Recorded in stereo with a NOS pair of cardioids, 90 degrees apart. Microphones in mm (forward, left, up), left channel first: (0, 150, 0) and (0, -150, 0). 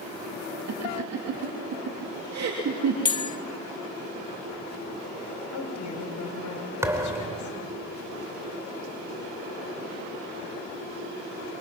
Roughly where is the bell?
Ahead.